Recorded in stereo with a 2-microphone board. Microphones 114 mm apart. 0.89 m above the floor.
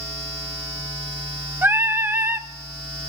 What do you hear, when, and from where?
1.6 s singing: 20° right (ahead or behind), 0.6 m